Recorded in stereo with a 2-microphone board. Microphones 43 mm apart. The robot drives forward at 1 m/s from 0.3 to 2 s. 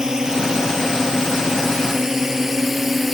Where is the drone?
15° right (ahead or behind); by 3.1 s 5° right (ahead or behind).